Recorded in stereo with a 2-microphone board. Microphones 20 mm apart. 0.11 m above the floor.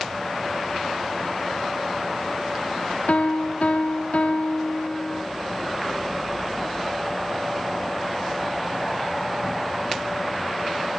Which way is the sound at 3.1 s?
65° left (ahead or behind).